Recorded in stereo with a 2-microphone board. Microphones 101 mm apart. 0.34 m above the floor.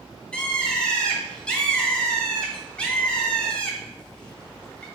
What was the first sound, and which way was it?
A bird, 10° left (ahead or behind).